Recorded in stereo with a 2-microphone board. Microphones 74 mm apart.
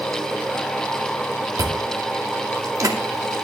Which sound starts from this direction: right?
Chewing, at 1.6 s.